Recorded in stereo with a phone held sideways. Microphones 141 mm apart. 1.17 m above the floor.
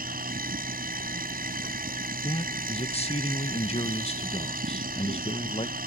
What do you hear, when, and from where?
0.0 s a machine running: 80° right
2.2 s a man speaking: 45° left (ahead or behind)